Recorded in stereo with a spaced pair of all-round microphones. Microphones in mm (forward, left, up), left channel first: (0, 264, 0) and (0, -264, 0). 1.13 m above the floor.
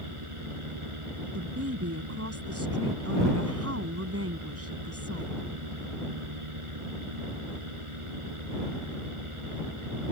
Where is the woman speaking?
30° right (ahead or behind).